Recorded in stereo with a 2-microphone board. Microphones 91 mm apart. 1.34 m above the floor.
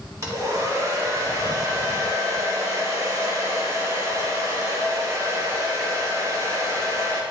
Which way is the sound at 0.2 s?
35° right (ahead or behind).